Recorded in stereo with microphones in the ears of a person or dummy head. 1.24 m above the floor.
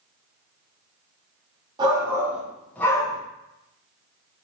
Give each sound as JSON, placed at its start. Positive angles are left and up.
{"t": 1.8, "sound": "a shout", "side_deg": -25, "distance_m": 1.0}